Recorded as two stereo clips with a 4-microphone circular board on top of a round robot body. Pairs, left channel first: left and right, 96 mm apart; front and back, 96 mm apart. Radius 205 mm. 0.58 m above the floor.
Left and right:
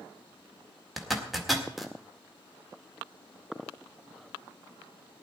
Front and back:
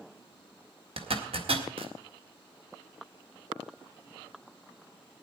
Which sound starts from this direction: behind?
A zipper, at 1.0 s.